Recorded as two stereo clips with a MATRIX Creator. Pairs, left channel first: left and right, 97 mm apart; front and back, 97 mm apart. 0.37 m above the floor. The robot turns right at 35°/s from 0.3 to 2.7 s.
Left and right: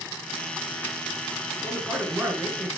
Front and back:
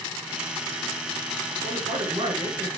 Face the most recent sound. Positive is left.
turn(degrees=-145)